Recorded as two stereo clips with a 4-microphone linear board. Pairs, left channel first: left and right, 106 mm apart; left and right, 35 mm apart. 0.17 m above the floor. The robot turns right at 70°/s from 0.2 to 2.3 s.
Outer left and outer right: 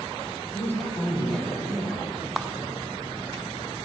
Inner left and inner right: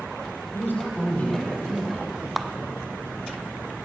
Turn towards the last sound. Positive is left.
turn(degrees=-5)  # may be behind; listen again after turning